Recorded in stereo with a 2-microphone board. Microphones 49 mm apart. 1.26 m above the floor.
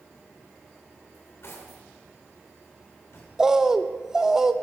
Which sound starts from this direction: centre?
A bird, at 3.4 s.